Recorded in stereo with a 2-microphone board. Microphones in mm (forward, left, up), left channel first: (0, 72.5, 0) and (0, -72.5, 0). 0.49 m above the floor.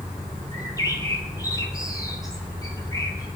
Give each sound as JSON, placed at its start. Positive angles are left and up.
{"t": 0.5, "sound": "a bird", "side_deg": 25, "distance_m": 2.0}